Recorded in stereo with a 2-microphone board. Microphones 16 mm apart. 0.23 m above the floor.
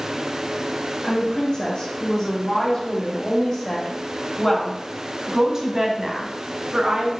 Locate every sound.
1.0 s a woman speaking: 60° left (ahead or behind), 2.0 m; by 7.1 s 50° right (ahead or behind), 1.6 m